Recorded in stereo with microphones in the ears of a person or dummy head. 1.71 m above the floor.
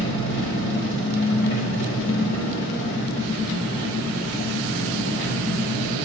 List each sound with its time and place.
0.0 s an engine running: 55° left (ahead or behind), 3 m